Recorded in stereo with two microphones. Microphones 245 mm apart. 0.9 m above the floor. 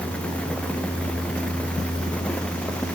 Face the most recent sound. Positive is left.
No sound to turn to.